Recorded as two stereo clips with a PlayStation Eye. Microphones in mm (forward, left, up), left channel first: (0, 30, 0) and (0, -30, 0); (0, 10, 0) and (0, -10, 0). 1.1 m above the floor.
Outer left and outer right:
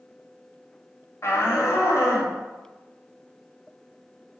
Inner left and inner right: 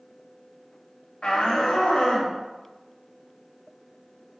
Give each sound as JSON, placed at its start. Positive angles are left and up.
{"t": 1.2, "sound": "a shout", "side_deg": 50, "distance_m": 2.5}